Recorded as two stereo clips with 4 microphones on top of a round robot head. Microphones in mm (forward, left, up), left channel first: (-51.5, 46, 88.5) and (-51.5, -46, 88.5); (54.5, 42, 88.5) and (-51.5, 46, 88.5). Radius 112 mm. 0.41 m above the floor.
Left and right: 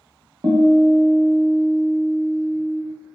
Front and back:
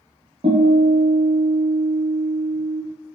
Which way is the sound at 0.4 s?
140° right.